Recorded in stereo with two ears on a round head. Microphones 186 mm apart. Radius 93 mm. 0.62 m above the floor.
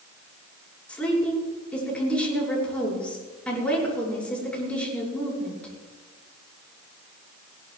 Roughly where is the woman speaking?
Centre.